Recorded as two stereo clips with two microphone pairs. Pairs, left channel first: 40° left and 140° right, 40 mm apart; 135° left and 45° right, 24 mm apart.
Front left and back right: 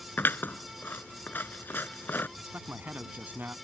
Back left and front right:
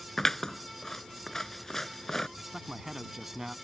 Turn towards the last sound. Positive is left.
turn(degrees=-115)